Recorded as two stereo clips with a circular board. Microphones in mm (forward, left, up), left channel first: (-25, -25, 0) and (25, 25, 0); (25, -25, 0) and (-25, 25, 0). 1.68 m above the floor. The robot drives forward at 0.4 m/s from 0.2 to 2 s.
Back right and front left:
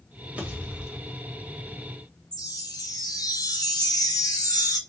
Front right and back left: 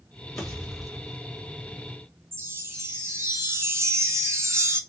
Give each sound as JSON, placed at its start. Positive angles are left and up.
{"t": 0.4, "sound": "a pop", "azimuth_deg": 25, "distance_m": 1.5}
{"t": 2.3, "sound": "a chime", "azimuth_deg": -170, "distance_m": 0.8}